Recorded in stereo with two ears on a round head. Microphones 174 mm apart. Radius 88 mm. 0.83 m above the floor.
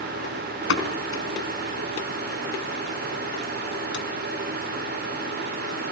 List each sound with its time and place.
0.7 s a pop: 70° left (ahead or behind), 4 m